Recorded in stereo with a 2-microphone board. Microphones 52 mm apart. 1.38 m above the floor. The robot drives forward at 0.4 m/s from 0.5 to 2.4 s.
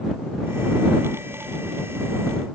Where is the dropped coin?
I don't hear a dropped coin.